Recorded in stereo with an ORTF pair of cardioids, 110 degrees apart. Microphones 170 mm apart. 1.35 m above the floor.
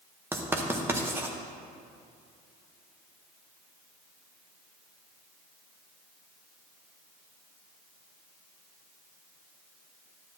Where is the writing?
15° right, 1.0 m.